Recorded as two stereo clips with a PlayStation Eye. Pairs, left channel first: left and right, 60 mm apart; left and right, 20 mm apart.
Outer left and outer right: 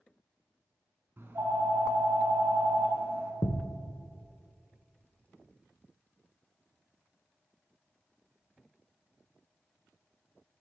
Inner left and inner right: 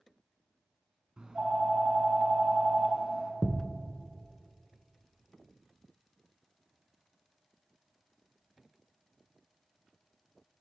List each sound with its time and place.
1.2 s a phone ringing: 40° right (ahead or behind), 1.3 m
3.4 s a thud: 55° left (ahead or behind), 0.9 m